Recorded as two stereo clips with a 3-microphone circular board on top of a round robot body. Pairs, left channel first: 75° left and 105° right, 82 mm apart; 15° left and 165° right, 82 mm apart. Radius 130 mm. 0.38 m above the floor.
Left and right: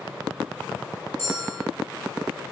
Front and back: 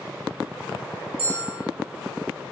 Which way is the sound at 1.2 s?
160° right.